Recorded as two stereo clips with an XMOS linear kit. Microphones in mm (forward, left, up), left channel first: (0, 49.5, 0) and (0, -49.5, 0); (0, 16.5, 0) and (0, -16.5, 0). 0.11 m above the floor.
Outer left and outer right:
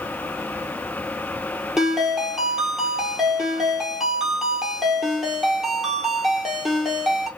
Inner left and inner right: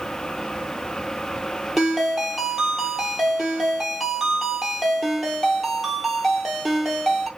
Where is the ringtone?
Centre (ahead or behind), 1.2 m.